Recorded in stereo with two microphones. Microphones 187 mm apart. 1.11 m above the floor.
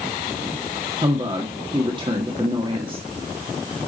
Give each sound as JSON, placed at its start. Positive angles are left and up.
{"t": 1.0, "sound": "a woman speaking", "side_deg": -30, "distance_m": 1.7}